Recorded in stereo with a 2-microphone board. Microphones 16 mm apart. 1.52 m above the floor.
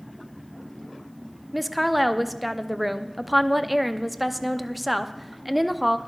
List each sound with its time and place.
1.5 s a woman speaking: 5° right (ahead or behind), 0.6 m